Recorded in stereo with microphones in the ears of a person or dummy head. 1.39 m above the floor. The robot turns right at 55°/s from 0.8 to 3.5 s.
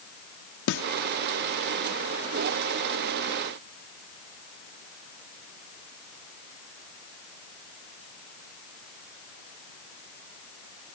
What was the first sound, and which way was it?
A snare drum, 65° left (ahead or behind).